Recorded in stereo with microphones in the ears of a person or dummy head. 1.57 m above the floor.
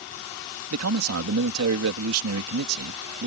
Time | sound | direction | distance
0.7 | a man speaking | 85° right | ?